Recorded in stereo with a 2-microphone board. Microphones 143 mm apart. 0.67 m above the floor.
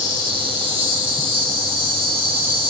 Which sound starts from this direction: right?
An insect, at 0.0 s.